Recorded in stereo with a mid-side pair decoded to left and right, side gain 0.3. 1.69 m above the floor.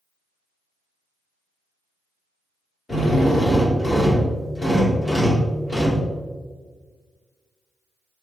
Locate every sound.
2.9 s a drill: 45° left, 3.5 m